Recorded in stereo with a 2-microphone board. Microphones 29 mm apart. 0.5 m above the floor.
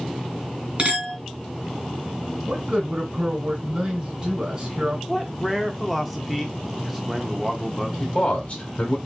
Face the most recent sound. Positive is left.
turn(degrees=50)  # may be behind; listen again after turning